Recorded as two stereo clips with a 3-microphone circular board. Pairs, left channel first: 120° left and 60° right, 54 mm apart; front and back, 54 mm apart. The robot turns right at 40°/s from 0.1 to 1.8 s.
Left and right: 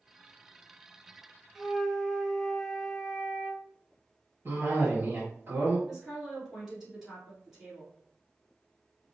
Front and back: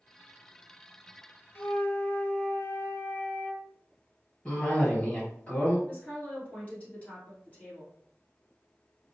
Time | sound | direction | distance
1.6 | a flute | 30° left | 0.6 m
4.5 | a cough | 50° right | 1.7 m
5.9 | a woman speaking | 20° left | 1.7 m